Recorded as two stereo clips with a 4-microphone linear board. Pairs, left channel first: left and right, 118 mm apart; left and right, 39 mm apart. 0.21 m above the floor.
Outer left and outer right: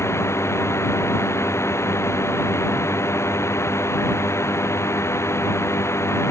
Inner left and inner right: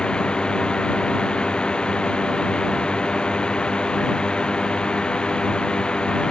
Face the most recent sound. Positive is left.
turn(degrees=25)  # may be behind; listen again after turning